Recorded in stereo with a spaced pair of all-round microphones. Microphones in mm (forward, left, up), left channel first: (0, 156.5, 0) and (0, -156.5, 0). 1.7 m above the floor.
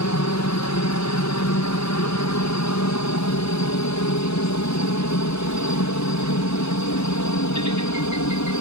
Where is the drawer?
No drawer in this recording.